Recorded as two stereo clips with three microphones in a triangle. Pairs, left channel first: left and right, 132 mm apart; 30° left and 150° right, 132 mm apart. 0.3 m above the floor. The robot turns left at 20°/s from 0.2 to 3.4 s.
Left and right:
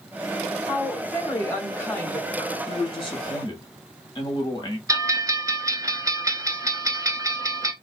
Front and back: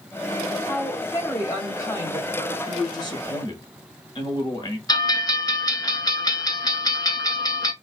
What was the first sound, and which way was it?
A woman speaking, 70° left.